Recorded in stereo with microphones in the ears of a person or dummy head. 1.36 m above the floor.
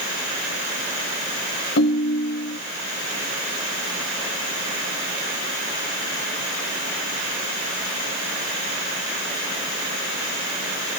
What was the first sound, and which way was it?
A ringtone, 60° left (ahead or behind).